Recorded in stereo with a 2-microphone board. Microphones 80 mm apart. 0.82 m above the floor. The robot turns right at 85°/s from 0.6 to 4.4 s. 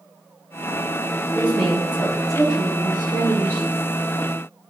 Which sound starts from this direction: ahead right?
A woman speaking, at 1.4 s.